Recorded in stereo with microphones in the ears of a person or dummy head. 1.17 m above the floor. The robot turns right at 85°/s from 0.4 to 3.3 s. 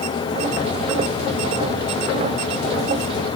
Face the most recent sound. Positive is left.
No sound to turn to.